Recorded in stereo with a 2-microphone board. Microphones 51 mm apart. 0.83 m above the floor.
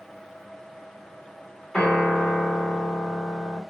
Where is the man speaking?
No man speaking in this recording.